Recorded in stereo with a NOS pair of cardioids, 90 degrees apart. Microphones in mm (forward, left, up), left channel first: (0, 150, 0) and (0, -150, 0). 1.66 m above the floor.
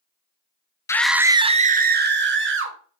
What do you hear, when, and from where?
0.9 s a scream: 10° left, 0.5 m; by 2.8 s 45° right, 1.3 m